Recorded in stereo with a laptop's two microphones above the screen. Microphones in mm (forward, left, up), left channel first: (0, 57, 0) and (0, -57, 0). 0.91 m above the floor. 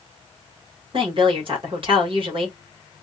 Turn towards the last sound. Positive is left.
turn(degrees=-50)  # may be behind; listen again after turning